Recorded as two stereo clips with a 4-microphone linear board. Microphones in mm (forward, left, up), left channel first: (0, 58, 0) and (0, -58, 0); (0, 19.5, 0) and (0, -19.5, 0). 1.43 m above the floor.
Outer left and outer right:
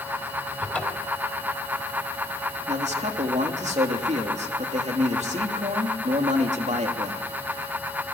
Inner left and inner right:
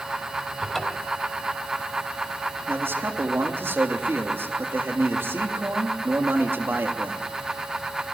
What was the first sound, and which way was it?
A cupboard door, 10° left (ahead or behind).